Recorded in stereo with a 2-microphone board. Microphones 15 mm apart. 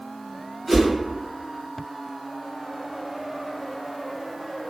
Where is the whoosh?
5° left (ahead or behind), 1.9 m.